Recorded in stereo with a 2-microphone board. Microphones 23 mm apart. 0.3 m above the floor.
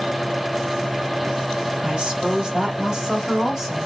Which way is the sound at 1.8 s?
50° right (ahead or behind).